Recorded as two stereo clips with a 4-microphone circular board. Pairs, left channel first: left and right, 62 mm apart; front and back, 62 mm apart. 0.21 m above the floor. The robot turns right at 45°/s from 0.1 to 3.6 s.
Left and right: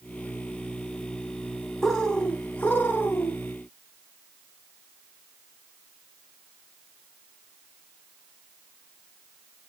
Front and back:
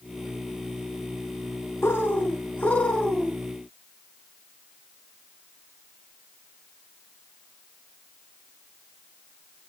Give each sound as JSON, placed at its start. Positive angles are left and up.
{"t": 1.8, "sound": "a bird", "azimuth_deg": 10, "distance_m": 1.1}